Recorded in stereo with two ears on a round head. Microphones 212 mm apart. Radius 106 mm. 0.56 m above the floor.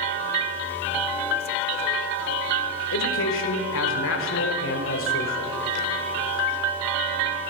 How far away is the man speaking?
About 1.8 m.